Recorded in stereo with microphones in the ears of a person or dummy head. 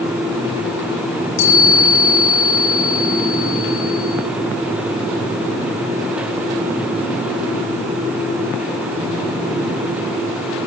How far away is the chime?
About 8.5 m.